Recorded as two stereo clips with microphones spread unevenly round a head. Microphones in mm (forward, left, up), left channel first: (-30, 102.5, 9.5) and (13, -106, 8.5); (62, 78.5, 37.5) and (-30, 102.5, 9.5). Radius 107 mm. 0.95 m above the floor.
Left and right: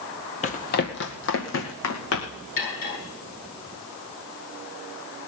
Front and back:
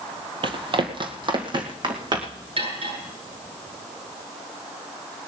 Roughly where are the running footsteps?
Behind left.